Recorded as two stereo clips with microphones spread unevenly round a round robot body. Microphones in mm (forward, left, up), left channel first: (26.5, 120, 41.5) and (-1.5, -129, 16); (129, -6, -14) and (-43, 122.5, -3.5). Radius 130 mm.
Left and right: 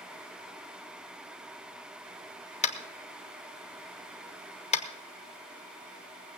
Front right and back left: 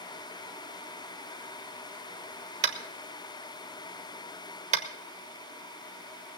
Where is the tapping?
130° left, 1.0 m.